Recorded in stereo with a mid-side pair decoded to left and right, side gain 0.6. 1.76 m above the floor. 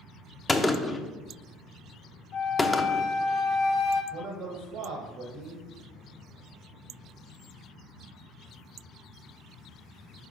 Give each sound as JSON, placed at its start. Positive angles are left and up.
{"t": 0.5, "sound": "a gunshot", "azimuth_deg": 15, "distance_m": 0.6}
{"t": 2.3, "sound": "a flute", "azimuth_deg": 65, "distance_m": 0.8}
{"t": 4.1, "sound": "a man speaking", "azimuth_deg": -60, "distance_m": 1.1}